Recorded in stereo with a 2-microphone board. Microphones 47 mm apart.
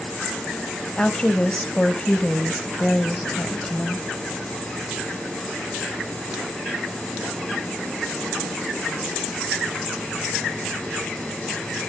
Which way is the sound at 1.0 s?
20° left (ahead or behind).